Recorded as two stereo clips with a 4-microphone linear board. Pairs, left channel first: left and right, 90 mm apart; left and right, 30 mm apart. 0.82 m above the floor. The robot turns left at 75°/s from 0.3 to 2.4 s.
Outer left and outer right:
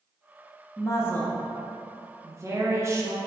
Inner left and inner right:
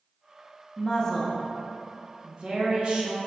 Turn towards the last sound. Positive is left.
turn(degrees=-60)